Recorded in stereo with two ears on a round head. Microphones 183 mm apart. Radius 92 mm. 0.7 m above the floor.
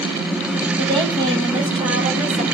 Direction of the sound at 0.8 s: 20° right (ahead or behind).